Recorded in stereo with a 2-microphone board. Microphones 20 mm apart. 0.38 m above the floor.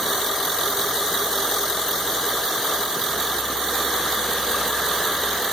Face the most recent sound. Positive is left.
No sound to turn to.